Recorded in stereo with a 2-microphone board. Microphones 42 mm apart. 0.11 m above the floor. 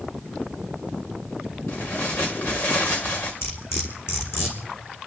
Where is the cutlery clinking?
75° left (ahead or behind), 4 m.